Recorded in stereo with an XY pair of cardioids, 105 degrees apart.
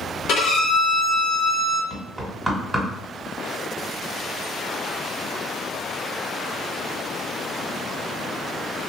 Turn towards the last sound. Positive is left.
turn(degrees=-5)